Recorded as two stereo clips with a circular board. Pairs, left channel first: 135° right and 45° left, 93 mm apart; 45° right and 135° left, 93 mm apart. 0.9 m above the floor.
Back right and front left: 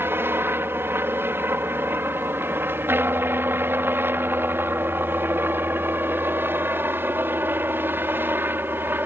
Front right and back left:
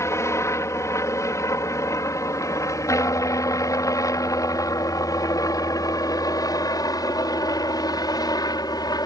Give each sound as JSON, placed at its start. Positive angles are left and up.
{"t": 0.0, "sound": "a helicopter", "azimuth_deg": -5}